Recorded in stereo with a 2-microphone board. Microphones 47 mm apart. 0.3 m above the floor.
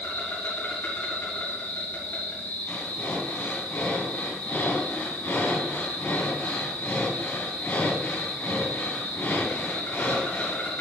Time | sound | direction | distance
0.0 | an insect | 45° left (ahead or behind) | 3.5 m
2.7 | breathing | 40° left (ahead or behind) | 2 m